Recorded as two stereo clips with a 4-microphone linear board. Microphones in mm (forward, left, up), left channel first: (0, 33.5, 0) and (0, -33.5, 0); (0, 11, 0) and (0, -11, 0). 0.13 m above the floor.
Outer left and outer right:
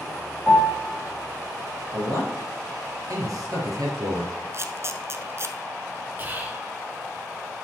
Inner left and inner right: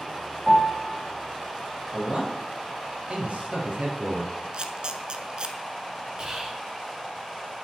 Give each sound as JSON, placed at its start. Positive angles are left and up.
{"t": 0.5, "sound": "a piano", "side_deg": 20, "distance_m": 3.0}
{"t": 1.9, "sound": "a man speaking", "side_deg": -60, "distance_m": 3.0}
{"t": 4.5, "sound": "a camera shutter", "side_deg": -40, "distance_m": 0.7}
{"t": 6.2, "sound": "whispering", "side_deg": -30, "distance_m": 1.5}